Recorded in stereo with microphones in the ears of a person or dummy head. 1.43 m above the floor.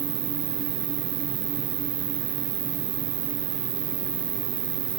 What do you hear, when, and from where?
0.0 s an insect: 35° right (ahead or behind), 1.0 m